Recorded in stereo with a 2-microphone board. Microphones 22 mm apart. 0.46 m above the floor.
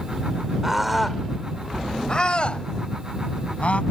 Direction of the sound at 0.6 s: 20° right (ahead or behind).